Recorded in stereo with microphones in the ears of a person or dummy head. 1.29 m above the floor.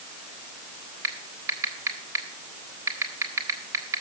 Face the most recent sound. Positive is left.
turn(degrees=-15)  # may be behind; listen again after turning